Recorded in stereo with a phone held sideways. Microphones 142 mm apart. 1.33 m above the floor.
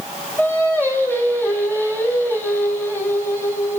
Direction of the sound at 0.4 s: 15° left (ahead or behind).